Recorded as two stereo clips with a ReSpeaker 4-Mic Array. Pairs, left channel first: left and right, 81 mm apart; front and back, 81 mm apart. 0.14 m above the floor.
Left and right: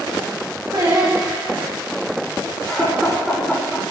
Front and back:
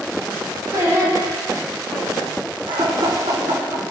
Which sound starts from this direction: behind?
Laughter, at 2.7 s.